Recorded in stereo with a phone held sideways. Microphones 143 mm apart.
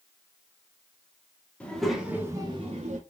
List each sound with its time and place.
1.6 s a child speaking: 10° left (ahead or behind), 1.2 m; by 3.0 s 55° right (ahead or behind), 0.9 m